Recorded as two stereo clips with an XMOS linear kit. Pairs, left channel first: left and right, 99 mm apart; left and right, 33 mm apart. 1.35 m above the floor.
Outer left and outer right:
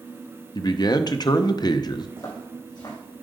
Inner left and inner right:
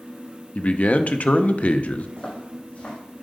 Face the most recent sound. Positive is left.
turn(degrees=45)  # may be behind; listen again after turning